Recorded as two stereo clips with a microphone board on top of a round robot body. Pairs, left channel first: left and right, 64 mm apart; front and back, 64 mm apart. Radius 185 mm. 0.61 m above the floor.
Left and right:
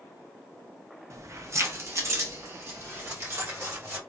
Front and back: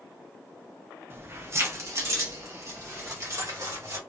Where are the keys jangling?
125° right, 1.0 m; by 4.0 s 140° right, 3 m.